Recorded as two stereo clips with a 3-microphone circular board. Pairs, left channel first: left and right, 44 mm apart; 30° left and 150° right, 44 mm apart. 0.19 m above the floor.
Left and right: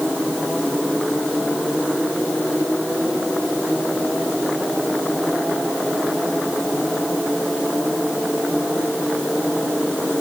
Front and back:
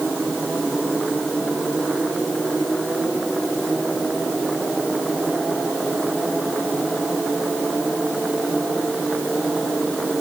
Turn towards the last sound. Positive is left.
No sound to turn to.